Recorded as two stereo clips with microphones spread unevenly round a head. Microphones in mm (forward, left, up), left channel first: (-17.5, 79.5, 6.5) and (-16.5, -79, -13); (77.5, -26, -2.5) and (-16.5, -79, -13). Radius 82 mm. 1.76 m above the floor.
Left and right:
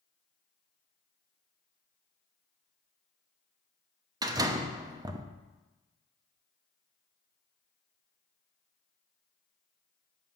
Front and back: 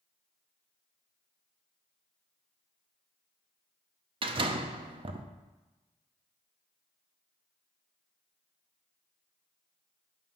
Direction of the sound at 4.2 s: 155° right.